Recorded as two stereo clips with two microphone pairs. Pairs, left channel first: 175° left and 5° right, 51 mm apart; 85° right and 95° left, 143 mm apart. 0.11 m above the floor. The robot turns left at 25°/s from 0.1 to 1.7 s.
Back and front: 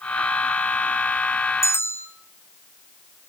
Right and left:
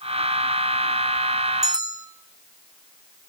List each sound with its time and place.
1.6 s a bell: 160° left, 1.3 m; by 2.1 s 155° left, 1.3 m